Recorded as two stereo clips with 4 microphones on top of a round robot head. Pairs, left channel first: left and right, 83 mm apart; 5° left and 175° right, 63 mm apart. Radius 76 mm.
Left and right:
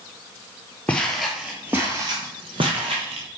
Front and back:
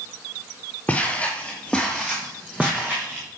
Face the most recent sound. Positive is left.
turn(degrees=-100)